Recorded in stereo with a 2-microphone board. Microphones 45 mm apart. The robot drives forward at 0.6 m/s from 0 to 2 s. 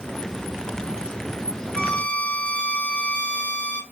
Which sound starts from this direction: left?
A violin, at 1.7 s.